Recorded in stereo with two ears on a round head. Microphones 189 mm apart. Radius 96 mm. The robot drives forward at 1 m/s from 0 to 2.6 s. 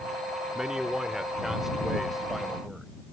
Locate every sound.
0.6 s a man speaking: 5° right (ahead or behind); by 2.9 s centre (ahead or behind)